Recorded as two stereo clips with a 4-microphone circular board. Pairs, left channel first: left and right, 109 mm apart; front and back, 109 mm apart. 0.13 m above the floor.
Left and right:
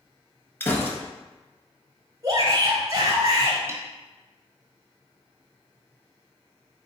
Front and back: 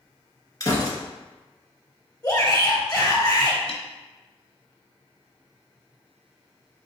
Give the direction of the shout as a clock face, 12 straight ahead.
2 o'clock.